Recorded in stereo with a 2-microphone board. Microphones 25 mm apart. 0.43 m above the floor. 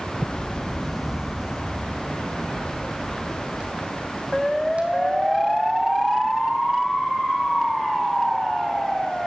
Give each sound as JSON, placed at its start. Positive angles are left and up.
{"t": 0.2, "sound": "footsteps", "side_deg": 55, "distance_m": 0.8}